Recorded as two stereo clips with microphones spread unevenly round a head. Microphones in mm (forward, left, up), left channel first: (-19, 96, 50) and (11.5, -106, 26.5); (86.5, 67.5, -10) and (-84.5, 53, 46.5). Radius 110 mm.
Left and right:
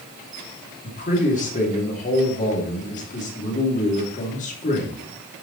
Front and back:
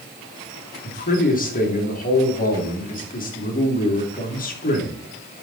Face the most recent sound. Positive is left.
turn(degrees=40)